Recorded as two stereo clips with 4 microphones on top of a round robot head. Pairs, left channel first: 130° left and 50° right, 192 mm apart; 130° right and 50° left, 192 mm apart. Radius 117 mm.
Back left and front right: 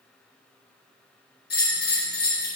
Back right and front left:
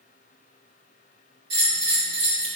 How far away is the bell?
About 3 m.